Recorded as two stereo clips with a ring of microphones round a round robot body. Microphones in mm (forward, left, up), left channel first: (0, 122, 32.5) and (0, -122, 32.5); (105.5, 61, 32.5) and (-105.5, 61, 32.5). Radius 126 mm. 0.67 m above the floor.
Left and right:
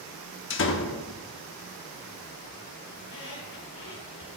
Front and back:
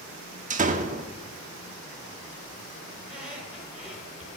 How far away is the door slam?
About 1.0 m.